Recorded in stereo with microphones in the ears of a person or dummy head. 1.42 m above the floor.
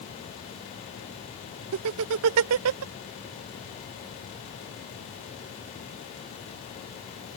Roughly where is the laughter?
Right.